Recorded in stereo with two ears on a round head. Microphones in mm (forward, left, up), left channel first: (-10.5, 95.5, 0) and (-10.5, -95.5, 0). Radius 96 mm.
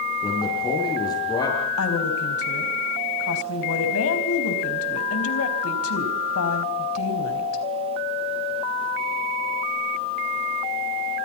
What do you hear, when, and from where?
0.2 s a man speaking: 20° left (ahead or behind), 8.5 m
1.8 s a woman speaking: 75° left (ahead or behind), 4.5 m